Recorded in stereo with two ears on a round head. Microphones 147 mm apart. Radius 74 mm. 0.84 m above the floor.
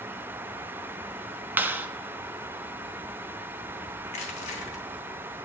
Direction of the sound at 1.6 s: 10° right (ahead or behind).